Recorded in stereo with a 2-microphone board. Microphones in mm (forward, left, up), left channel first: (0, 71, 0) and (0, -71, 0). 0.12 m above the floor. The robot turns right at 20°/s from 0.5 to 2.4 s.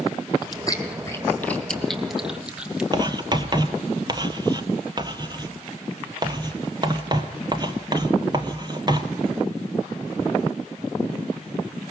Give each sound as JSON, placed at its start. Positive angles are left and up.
{"t": 0.4, "sound": "chewing", "side_deg": 30, "distance_m": 2.0}
{"t": 2.9, "sound": "writing", "side_deg": -30, "distance_m": 1.2}